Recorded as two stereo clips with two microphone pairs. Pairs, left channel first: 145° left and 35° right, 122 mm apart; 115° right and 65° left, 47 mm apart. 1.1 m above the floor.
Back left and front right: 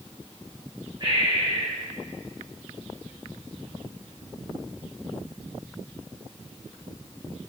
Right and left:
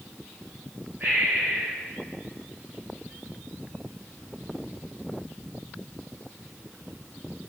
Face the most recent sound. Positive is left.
turn(degrees=15)